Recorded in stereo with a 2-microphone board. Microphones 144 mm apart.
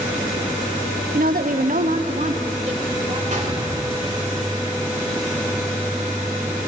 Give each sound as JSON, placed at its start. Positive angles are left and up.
{"t": 1.1, "sound": "a woman speaking", "side_deg": -75, "distance_m": 0.8}
{"t": 3.3, "sound": "a gunshot", "side_deg": -60, "distance_m": 3.0}